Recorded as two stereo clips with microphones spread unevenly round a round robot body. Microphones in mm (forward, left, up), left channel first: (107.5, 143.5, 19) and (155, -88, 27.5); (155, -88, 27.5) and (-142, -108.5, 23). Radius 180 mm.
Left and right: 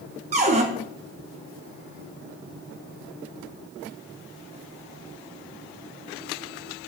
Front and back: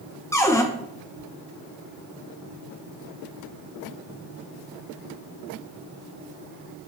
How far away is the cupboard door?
About 0.7 m.